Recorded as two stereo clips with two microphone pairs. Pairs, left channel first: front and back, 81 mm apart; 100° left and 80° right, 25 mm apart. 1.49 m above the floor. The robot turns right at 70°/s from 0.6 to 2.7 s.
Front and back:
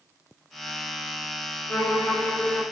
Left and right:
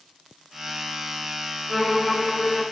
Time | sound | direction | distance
1.7 | a violin | 25° left | 1.3 m